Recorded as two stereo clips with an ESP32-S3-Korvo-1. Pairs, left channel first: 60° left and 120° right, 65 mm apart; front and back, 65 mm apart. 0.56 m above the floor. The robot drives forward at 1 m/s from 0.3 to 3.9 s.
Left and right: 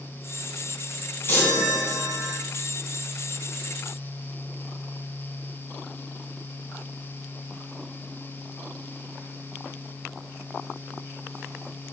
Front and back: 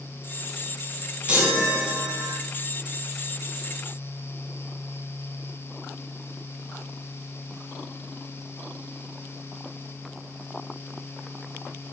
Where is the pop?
No pop in this recording.